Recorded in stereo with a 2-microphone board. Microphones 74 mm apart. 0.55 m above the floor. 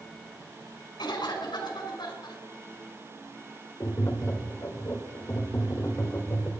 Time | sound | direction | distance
1.0 | a cough | 75° left (ahead or behind) | 5 m
3.8 | tapping | 40° left (ahead or behind) | 2 m